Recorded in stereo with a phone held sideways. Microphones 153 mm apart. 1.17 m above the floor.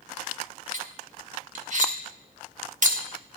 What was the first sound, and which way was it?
Cutlery clinking, 55° right (ahead or behind).